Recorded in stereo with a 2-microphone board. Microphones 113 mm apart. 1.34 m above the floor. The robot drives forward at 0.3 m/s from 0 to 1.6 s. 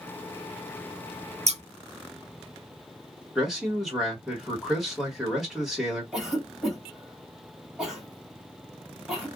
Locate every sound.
1.5 s scissors: 75° right (ahead or behind), 0.5 m; by 1.6 s 70° right (ahead or behind), 0.5 m
3.4 s a man speaking: 5° right (ahead or behind), 1.6 m
6.1 s a cough: 10° right (ahead or behind), 2 m